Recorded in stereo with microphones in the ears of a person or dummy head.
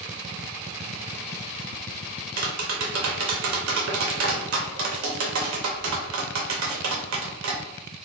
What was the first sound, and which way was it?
Tapping, 70° right (ahead or behind).